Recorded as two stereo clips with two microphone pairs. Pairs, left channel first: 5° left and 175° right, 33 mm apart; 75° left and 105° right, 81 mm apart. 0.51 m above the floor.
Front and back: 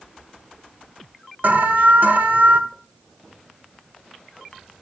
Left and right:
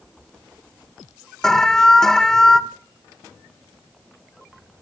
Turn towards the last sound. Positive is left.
turn(degrees=160)